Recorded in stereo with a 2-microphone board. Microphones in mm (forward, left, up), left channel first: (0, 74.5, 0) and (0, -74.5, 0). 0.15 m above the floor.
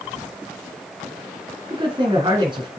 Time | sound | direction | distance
1.7 | a man speaking | 35° right (ahead or behind) | 1.9 m